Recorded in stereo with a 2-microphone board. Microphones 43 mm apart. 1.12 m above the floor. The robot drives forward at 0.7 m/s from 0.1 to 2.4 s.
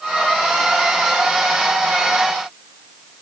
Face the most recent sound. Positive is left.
No sound to turn to.